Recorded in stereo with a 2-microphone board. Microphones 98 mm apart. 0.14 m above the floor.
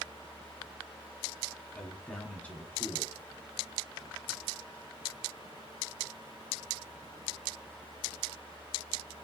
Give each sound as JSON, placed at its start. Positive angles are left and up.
{"t": 1.7, "sound": "a man speaking", "side_deg": 15, "distance_m": 1.3}